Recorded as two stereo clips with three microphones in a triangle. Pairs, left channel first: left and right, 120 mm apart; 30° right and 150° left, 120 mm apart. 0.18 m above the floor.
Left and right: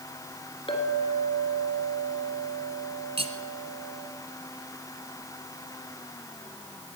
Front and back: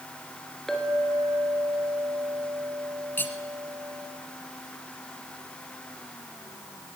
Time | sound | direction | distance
0.7 | a clink | 55° left | 2 m
3.2 | cutlery clinking | 100° right | 1.3 m